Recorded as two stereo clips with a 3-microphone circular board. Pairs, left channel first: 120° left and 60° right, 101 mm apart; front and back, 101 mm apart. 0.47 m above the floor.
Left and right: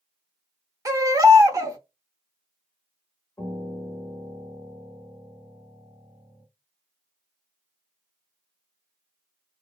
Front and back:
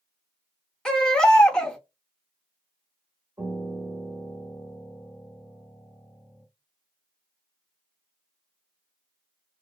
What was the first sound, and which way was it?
A baby crying, 75° right.